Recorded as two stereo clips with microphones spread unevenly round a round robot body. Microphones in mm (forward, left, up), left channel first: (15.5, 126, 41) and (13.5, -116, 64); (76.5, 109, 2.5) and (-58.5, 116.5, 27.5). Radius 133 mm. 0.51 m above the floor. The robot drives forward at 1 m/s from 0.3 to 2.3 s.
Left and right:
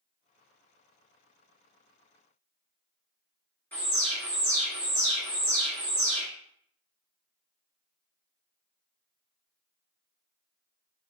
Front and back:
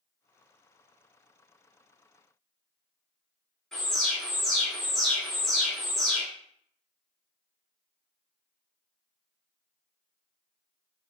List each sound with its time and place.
3.7 s an alarm: 40° left, 1.9 m